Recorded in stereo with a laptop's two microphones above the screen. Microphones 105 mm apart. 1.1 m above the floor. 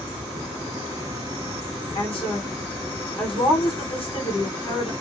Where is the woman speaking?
55° left (ahead or behind), 1.4 m.